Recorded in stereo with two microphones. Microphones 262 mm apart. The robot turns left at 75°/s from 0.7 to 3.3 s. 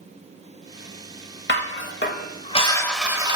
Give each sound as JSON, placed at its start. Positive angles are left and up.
{"t": 1.5, "sound": "dishes clattering", "azimuth_deg": 110, "distance_m": 0.7}